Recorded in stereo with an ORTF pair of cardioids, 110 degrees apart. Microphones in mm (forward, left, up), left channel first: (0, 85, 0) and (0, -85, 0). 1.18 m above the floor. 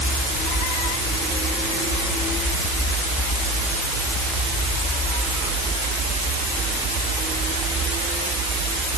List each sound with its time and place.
Only background noise.